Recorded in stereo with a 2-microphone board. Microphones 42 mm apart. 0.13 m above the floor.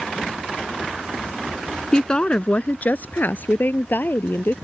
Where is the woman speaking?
20° left (ahead or behind); by 4.5 s 55° left (ahead or behind).